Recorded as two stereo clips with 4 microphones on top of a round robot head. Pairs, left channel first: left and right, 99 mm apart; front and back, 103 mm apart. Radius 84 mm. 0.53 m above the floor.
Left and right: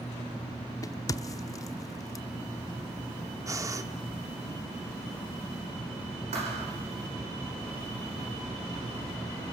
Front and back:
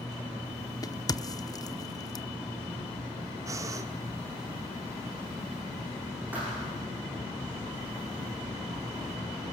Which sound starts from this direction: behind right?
Breathing, at 3.5 s.